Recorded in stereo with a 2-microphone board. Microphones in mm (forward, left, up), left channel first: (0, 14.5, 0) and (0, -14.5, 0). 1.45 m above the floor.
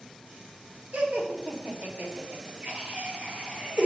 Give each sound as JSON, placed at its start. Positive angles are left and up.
{"t": 0.9, "sound": "laughter", "side_deg": -80, "distance_m": 1.8}